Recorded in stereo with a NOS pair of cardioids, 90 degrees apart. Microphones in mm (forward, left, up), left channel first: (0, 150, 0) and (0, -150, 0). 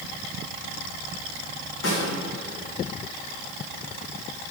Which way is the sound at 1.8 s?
60° left.